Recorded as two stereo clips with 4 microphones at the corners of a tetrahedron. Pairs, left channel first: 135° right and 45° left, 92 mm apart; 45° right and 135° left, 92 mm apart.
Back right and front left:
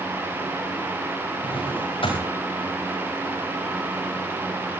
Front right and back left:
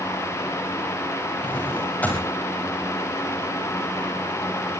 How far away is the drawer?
About 7.5 m.